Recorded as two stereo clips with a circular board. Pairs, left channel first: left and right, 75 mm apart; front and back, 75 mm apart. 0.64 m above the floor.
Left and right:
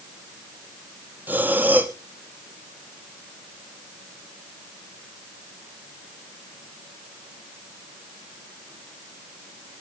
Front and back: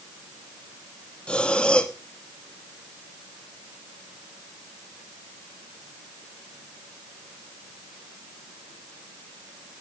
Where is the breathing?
60° right, 1.2 m.